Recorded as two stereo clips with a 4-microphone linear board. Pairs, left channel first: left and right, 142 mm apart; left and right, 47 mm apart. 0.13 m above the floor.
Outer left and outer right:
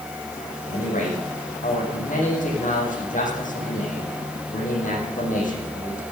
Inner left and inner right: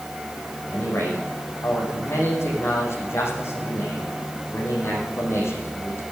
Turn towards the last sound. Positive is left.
turn(degrees=65)  # may be behind; listen again after turning